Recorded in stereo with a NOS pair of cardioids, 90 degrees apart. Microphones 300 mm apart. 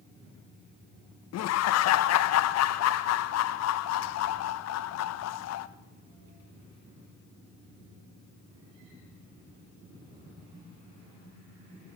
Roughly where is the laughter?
Ahead left.